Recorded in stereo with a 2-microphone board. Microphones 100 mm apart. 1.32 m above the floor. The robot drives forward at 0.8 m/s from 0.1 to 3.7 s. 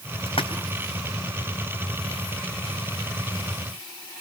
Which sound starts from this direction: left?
A splash, at 0.3 s.